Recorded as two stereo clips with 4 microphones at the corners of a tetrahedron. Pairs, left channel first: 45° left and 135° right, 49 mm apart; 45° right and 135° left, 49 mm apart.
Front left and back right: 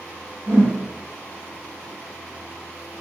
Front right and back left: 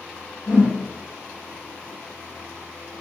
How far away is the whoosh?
About 1.2 m.